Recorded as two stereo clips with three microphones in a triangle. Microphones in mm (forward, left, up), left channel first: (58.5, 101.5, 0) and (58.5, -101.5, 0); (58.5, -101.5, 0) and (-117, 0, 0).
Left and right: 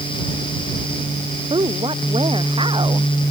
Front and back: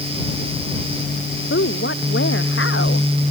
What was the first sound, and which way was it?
A woman speaking, 25° right.